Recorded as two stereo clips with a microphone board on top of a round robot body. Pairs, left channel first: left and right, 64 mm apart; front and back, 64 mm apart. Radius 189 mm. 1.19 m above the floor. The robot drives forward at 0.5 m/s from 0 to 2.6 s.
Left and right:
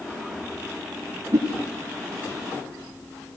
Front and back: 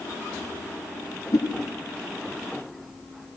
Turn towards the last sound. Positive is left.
turn(degrees=-45)